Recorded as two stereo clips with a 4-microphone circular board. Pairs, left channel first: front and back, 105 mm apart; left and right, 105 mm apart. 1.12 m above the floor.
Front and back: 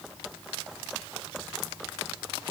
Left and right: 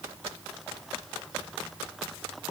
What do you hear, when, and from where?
Only background noise.